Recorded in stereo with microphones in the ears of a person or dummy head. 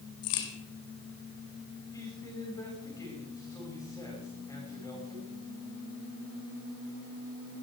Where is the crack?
80° left, 3 m.